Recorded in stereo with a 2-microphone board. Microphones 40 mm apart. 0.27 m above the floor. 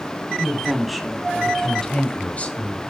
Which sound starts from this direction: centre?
A woman speaking, at 0.4 s.